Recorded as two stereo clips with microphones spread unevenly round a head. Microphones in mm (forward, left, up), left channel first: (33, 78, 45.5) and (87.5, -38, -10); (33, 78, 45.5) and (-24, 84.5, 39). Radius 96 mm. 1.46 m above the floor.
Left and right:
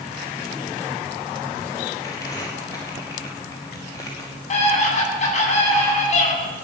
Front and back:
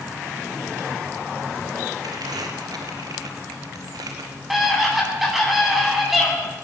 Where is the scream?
90° left, 10 m.